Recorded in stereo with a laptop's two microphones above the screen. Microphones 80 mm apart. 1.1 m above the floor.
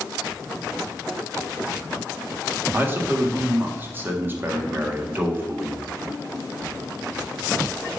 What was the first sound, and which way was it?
A man speaking, 25° right (ahead or behind).